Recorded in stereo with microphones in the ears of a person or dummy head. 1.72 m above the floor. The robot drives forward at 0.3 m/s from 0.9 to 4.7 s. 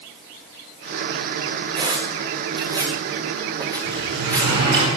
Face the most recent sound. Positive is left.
turn(degrees=-55)  # may be behind; listen again after turning